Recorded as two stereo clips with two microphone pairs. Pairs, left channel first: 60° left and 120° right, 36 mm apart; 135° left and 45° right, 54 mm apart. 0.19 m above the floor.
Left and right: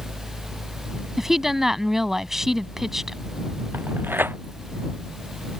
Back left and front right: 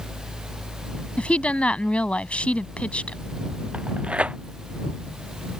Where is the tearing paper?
115° right.